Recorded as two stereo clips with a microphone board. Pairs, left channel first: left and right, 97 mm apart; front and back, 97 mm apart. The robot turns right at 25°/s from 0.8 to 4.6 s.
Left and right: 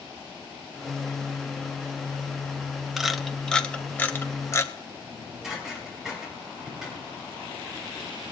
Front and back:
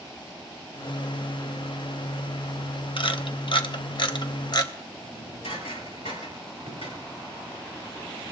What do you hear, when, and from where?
3.0 s a camera shutter: 5° right, 1.0 m; by 4.7 s 35° left, 1.0 m
5.0 s dishes clattering: 5° right, 7.5 m